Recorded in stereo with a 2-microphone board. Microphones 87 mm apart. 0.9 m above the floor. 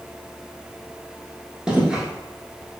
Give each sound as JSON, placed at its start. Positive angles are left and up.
{"t": 1.7, "sound": "footsteps", "side_deg": -10, "distance_m": 0.9}